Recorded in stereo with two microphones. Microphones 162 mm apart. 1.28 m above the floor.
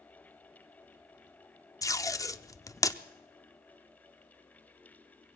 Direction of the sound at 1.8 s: 20° left (ahead or behind).